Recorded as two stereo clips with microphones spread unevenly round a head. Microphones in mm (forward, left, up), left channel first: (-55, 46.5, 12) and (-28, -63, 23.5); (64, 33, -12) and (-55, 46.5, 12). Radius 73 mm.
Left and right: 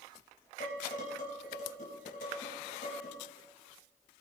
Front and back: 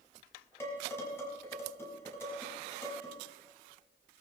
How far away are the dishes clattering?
About 5.5 m.